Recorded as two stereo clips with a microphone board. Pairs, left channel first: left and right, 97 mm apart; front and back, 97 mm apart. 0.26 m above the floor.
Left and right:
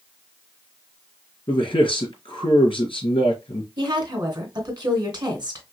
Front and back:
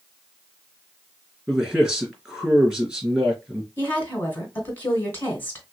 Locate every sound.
1.5 s a man speaking: 105° left, 2.5 m
3.8 s a woman speaking: 60° right, 2 m